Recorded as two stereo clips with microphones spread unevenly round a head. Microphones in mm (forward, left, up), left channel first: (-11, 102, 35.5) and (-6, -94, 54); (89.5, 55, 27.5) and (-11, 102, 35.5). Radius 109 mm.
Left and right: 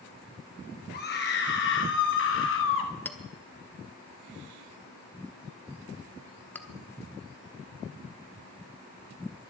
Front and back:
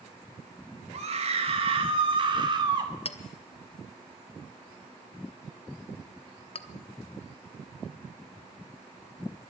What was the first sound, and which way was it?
A scream, 130° left.